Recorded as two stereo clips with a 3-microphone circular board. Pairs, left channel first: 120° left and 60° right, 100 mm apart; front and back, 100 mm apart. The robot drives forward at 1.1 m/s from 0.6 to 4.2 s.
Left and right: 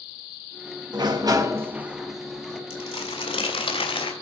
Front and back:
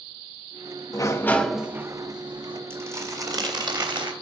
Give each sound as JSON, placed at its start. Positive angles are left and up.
{"t": 0.9, "sound": "a sliding door", "azimuth_deg": -35, "distance_m": 1.0}
{"t": 2.7, "sound": "crumpling", "azimuth_deg": 115, "distance_m": 1.7}